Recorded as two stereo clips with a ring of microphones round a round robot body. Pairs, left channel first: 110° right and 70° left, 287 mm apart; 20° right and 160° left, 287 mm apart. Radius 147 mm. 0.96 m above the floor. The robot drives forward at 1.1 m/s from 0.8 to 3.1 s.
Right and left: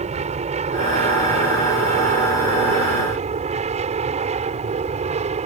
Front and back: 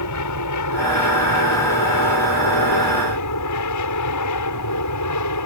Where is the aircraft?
Straight ahead.